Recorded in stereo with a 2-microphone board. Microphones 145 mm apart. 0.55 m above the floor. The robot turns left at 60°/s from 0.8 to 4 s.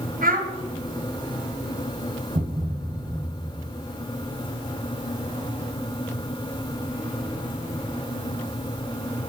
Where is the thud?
120° right, 1.0 m; by 3.8 s 155° left, 1.0 m.